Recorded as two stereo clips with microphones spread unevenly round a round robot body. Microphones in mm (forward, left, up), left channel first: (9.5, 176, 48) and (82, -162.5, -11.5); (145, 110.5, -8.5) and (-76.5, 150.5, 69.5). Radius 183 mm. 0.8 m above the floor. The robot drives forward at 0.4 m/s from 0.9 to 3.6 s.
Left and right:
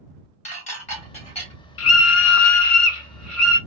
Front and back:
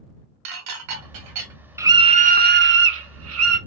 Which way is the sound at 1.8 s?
65° left.